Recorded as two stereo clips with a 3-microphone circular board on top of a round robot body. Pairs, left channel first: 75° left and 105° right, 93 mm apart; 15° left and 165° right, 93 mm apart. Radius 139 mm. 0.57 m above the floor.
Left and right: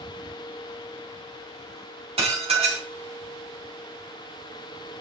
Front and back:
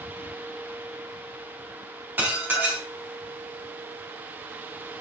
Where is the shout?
I don't hear a shout.